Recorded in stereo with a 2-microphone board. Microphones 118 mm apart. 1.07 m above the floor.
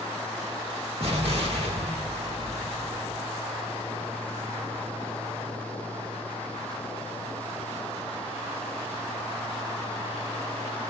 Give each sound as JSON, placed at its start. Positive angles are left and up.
{"t": 1.0, "sound": "an explosion", "side_deg": -60, "distance_m": 1.3}